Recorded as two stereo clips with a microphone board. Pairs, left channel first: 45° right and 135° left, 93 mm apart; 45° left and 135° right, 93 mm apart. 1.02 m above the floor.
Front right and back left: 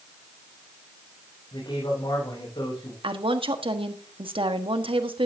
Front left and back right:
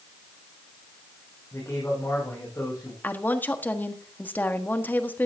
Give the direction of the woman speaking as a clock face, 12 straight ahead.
8 o'clock.